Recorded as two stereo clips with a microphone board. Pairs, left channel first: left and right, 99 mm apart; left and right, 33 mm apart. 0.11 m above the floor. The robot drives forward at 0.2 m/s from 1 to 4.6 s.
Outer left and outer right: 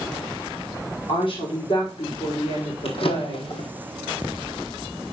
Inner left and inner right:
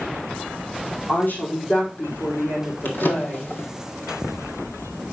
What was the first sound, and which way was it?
A woman speaking, 70° left (ahead or behind).